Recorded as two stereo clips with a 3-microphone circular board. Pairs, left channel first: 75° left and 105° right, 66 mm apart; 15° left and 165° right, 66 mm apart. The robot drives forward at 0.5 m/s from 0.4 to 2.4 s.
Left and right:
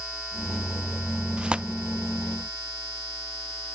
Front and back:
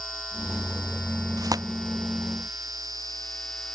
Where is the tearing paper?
Straight behind.